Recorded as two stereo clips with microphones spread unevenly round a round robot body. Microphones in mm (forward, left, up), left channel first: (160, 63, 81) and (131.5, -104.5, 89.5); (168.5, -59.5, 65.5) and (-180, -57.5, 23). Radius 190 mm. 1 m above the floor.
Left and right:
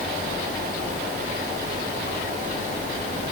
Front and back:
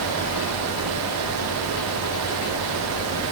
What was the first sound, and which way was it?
Only background noise.